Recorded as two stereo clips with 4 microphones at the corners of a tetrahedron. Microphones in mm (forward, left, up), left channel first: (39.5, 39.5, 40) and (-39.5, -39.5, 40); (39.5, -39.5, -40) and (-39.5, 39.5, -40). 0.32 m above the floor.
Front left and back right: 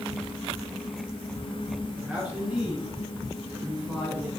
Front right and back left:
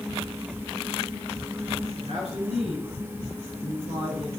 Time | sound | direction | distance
1.9 | a man speaking | 140° left | 4.5 m